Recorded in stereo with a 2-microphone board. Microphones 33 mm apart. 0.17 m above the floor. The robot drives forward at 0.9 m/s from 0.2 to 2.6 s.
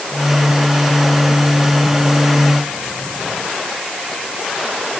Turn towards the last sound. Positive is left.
No sound to turn to.